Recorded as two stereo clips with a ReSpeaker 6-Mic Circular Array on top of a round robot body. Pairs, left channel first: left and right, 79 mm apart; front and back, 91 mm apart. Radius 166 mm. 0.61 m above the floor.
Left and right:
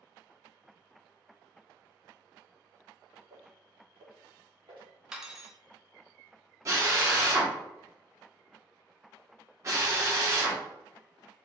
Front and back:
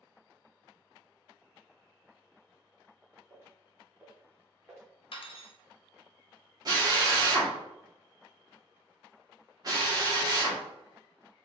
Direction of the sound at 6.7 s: 140° right.